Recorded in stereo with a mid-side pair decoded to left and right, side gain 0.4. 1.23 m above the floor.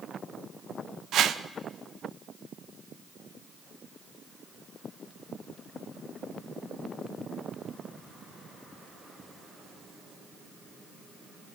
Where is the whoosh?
70° right, 0.6 m.